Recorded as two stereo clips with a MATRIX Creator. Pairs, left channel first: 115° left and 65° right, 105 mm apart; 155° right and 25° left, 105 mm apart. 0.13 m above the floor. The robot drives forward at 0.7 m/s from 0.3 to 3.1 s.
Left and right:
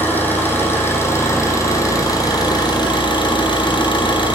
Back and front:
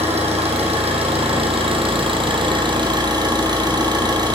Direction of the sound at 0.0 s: 40° left.